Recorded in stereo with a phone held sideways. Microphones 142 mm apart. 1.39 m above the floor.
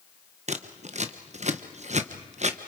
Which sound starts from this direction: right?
Scissors, at 0.5 s.